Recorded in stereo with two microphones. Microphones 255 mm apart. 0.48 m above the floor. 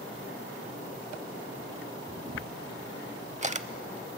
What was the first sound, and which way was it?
A camera shutter, 30° right (ahead or behind).